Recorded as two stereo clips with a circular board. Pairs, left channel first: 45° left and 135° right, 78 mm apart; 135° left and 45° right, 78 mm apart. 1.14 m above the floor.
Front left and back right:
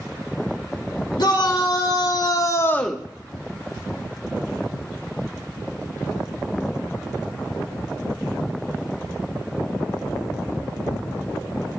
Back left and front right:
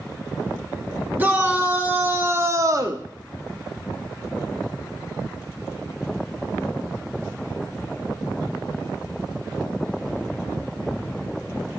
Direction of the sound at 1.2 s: 25° left.